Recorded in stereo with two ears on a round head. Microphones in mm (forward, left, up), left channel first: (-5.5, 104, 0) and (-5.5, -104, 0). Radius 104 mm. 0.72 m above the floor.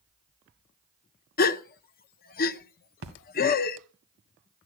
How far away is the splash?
About 2 m.